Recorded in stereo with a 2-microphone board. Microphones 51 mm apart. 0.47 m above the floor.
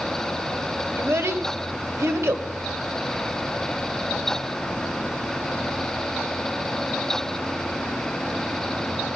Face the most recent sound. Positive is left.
turn(degrees=-65)  # may be behind; listen again after turning